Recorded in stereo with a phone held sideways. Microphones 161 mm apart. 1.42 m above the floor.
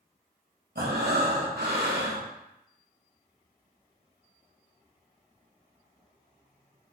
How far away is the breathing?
About 1.3 m.